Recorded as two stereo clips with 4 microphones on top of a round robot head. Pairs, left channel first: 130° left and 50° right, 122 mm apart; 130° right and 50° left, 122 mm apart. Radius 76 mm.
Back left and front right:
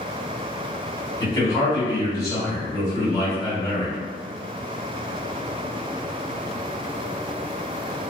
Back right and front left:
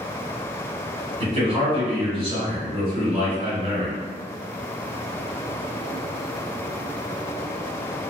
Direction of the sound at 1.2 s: 70° left.